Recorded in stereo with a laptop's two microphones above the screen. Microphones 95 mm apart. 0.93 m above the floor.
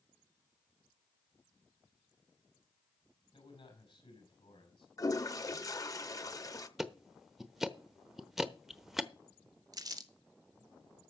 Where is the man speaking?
75° left (ahead or behind), 4.5 m.